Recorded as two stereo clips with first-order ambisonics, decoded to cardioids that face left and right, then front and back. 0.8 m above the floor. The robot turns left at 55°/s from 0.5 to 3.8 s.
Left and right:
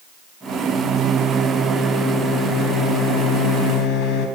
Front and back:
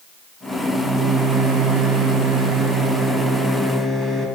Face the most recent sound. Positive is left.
turn(degrees=85)